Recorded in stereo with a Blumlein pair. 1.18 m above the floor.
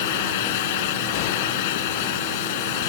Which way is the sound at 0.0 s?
50° left.